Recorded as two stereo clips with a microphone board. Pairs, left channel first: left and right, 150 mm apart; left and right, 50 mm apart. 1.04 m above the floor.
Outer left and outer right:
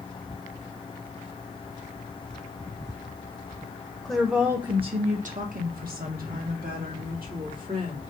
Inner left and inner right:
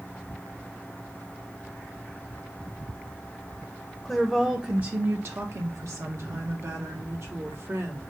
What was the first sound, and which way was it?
A woman speaking, 5° left (ahead or behind).